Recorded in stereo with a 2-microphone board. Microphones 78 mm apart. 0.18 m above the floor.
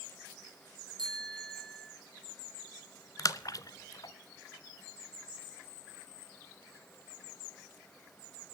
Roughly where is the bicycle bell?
Right.